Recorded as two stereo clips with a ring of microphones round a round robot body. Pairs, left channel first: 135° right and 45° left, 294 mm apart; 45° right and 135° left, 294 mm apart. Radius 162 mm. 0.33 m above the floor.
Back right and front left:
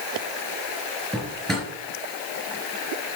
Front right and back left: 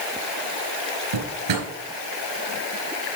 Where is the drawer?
135° left, 4 m.